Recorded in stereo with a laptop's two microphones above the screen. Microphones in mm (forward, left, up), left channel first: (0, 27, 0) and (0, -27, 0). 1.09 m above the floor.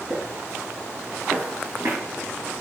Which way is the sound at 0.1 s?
65° right (ahead or behind).